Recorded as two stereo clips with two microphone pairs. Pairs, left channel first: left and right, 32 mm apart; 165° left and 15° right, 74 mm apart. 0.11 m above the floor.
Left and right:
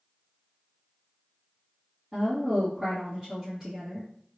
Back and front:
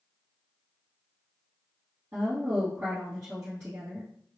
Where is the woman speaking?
25° right, 2.0 m.